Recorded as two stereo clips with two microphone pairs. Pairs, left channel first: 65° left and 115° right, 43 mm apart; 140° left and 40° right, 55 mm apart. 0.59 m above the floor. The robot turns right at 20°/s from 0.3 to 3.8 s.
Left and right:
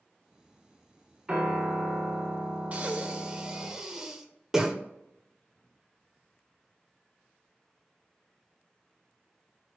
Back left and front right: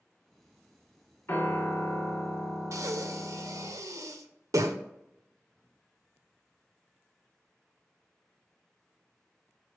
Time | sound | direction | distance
1.3 | a piano | straight behind | 1.1 m
2.7 | breathing | 60° right | 0.6 m